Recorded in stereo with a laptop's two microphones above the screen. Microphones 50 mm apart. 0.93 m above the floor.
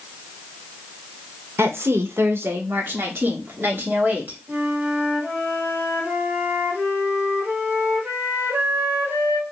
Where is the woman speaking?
65° right (ahead or behind), 0.9 m; by 4.4 s 45° right (ahead or behind), 2.5 m.